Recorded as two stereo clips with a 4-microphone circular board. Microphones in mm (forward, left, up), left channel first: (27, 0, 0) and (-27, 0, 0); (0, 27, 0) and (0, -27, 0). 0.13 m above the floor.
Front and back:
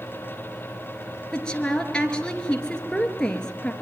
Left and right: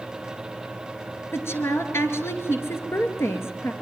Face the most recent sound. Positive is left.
turn(degrees=70)